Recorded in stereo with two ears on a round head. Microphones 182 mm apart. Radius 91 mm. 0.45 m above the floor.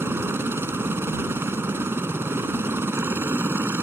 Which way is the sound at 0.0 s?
10° right (ahead or behind).